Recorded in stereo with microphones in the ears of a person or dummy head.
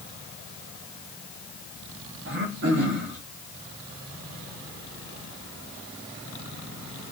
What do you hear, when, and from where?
2.2 s throat clearing: 60° right (ahead or behind), 0.9 m